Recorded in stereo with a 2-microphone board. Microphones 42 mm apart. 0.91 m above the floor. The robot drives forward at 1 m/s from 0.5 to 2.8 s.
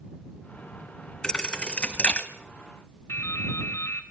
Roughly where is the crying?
No crying in this recording.